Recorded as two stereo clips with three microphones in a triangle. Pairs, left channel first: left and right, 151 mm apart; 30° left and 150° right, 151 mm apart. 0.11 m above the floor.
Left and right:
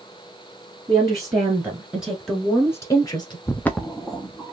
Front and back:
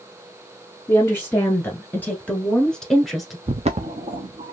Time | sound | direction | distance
0.9 | a woman speaking | 35° right | 1.5 m
3.5 | footsteps | 165° left | 0.6 m